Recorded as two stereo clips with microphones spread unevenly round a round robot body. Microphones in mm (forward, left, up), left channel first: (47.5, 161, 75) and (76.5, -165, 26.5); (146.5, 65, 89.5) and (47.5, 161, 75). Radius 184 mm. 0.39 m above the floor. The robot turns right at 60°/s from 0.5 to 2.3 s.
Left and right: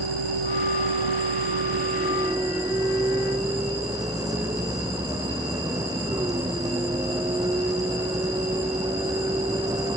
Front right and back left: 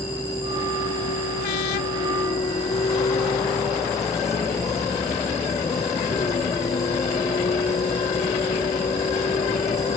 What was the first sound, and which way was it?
A vehicle, 115° right.